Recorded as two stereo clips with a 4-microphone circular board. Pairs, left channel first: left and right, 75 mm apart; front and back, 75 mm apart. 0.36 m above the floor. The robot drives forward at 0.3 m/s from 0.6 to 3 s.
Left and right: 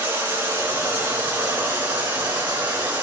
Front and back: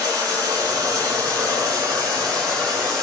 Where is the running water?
150° right, 4 m; by 3.0 s 155° right, 4.5 m.